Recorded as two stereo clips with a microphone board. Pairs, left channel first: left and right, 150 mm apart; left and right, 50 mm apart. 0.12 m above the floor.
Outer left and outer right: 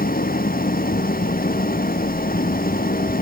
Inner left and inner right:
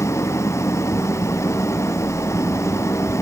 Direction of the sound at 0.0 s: 75° left (ahead or behind).